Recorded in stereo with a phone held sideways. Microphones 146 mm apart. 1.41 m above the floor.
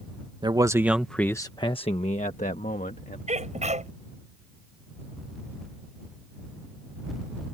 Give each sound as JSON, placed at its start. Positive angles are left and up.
{"t": 0.4, "sound": "a man speaking", "side_deg": -30}
{"t": 3.3, "sound": "a sneeze", "side_deg": -50}